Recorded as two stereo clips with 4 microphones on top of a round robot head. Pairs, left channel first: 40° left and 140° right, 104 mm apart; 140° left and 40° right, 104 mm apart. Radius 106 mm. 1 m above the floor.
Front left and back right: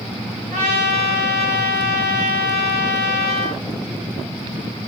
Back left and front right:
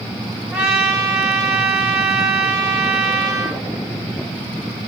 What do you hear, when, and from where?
0.5 s a trumpet: 115° right, 1.7 m